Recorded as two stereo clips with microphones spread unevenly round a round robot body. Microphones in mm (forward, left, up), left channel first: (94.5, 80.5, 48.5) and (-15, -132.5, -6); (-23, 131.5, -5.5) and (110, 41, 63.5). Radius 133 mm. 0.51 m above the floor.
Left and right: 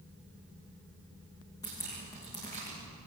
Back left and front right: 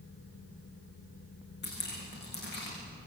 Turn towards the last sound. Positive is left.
turn(degrees=140)